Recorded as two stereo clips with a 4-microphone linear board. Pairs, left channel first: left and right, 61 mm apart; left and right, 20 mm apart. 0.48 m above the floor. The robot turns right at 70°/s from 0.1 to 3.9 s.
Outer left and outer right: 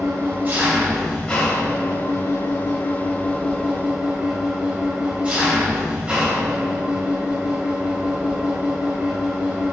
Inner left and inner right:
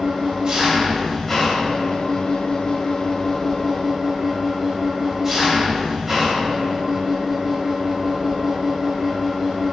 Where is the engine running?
65° right, 2.5 m; by 9.7 s 155° right, 2.5 m.